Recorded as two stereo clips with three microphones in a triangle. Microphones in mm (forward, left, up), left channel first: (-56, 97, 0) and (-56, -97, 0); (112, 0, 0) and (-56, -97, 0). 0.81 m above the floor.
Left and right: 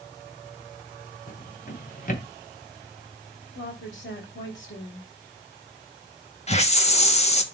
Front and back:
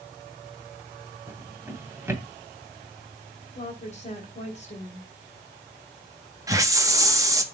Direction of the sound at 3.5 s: 85° left.